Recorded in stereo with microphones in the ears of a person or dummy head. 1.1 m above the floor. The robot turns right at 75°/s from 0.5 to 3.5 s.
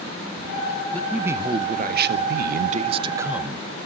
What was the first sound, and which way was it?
A man speaking, 170° left.